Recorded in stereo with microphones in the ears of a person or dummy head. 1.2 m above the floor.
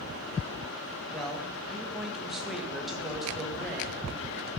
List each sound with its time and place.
1.1 s a man speaking: 5° left (ahead or behind), 1.5 m